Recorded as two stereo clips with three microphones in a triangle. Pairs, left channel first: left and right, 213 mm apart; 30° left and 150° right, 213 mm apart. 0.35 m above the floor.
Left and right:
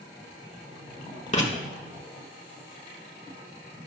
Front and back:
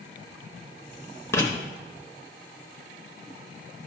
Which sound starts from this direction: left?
Writing, at 1.3 s.